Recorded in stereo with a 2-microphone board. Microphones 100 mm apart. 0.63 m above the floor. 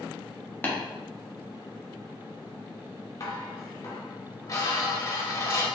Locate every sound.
0.6 s tapping: 20° left (ahead or behind), 0.9 m
3.2 s dishes clattering: 35° left (ahead or behind), 0.8 m